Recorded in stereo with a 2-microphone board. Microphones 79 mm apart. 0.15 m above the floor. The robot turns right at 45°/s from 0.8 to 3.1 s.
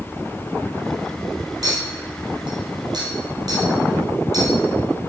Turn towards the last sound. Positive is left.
turn(degrees=-55)  # may be behind; listen again after turning